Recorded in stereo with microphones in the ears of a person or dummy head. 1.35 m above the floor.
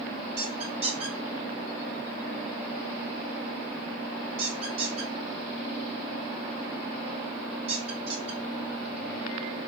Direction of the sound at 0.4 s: 40° right (ahead or behind).